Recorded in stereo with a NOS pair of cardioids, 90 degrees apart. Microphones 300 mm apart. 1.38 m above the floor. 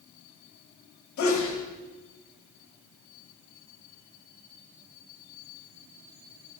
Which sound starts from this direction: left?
A sneeze, at 1.2 s.